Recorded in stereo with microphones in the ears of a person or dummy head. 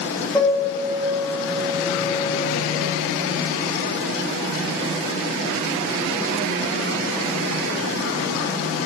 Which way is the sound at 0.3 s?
Centre (ahead or behind).